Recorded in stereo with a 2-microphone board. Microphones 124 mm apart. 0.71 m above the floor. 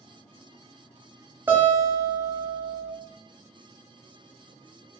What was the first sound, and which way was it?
A guitar, 15° right (ahead or behind).